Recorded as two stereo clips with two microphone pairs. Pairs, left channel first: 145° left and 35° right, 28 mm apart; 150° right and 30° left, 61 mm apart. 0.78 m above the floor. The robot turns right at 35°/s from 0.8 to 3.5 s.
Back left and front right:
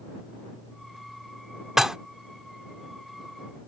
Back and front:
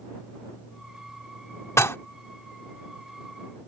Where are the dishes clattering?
110° right; by 2.0 s 105° right.